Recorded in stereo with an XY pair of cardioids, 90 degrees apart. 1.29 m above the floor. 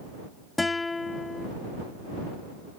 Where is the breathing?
No breathing in this recording.